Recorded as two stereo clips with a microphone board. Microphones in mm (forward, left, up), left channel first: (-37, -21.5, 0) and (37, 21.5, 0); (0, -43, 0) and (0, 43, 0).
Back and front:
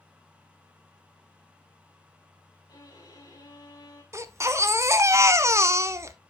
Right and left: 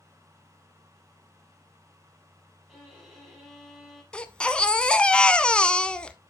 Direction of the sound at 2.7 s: Straight behind.